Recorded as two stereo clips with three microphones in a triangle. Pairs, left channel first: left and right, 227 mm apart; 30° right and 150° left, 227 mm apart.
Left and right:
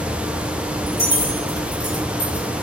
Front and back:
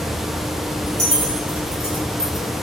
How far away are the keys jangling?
About 1.6 m.